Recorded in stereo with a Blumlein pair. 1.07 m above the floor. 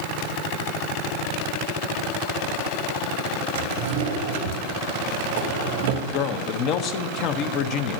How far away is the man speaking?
About 0.7 m.